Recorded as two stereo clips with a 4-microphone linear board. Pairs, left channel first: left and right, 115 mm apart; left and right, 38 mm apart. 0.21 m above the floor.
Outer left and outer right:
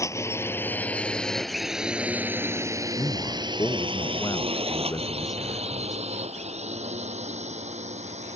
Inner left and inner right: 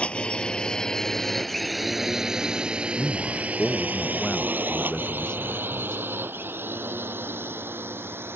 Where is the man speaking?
30° left (ahead or behind).